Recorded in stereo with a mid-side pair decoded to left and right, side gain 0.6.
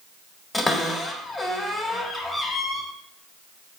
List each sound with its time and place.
0.5 s a cupboard door: 20° left, 1.2 m